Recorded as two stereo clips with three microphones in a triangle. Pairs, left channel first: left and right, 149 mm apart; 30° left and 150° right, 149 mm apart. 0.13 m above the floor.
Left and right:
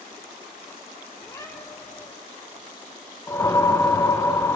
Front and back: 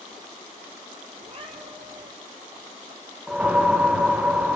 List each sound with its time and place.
1.2 s a cat meowing: 160° left, 2.0 m
3.3 s a whoosh: 135° left, 1.0 m